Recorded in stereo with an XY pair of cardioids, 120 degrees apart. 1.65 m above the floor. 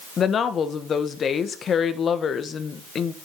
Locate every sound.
0.2 s a woman speaking: 45° left, 1.3 m